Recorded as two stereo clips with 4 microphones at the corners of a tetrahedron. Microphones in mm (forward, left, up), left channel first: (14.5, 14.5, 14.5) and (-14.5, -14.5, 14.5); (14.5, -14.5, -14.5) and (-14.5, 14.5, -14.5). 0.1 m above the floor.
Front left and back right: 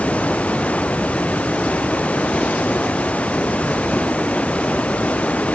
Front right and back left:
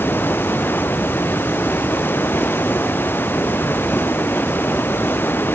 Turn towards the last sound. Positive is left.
turn(degrees=-15)